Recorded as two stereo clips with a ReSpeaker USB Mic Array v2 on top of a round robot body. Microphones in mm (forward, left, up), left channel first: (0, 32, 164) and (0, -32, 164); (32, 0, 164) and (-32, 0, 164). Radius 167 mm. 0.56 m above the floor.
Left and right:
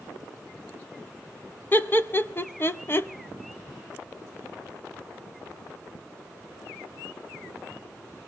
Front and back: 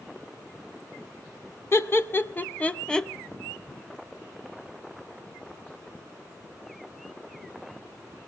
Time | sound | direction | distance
1.7 | laughter | 40° left | 1.4 m